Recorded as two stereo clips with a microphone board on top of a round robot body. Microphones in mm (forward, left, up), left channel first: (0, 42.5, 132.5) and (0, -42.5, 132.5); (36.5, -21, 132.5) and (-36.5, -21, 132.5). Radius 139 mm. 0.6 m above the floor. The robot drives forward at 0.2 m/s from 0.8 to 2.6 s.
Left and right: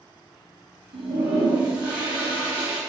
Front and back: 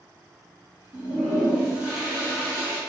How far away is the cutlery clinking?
No cutlery clinking in this recording.